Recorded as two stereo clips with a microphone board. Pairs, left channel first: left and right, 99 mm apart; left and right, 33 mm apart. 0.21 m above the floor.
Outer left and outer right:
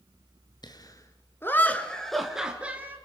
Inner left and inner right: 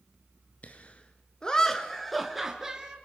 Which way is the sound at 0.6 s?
45° left (ahead or behind).